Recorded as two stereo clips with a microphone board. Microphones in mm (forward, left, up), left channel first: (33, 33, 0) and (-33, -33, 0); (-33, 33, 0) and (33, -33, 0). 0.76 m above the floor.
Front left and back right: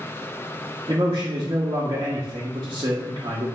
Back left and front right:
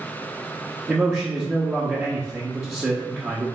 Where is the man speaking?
105° right, 0.7 m.